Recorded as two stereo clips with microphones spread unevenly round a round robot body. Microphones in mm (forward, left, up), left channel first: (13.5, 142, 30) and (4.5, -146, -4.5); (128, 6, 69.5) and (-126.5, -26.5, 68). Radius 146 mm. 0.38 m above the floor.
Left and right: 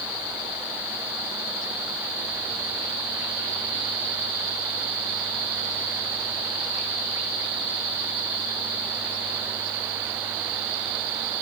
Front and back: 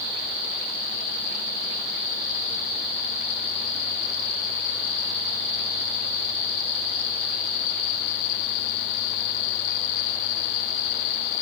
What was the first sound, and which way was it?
Only background noise.